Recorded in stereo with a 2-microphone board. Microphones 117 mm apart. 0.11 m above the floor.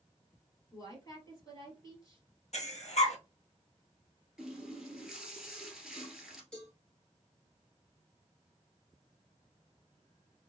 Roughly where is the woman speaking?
Left.